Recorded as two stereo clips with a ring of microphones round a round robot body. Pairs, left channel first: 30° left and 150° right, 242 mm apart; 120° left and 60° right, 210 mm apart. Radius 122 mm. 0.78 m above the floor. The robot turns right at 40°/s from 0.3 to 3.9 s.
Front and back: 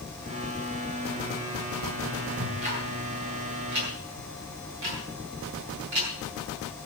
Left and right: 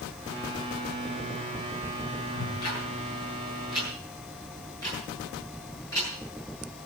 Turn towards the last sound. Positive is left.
turn(degrees=-165)